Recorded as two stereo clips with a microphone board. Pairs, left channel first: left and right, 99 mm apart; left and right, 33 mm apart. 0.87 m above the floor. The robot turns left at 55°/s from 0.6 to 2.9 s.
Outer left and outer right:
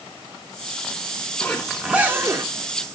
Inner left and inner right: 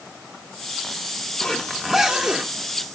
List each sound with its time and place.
1.4 s a zipper: 15° left, 1.5 m; by 2.5 s 45° right, 1.5 m